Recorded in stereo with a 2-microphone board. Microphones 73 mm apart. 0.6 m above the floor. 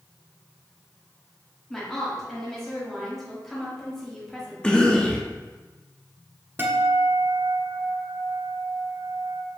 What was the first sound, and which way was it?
A woman speaking, 5° left (ahead or behind).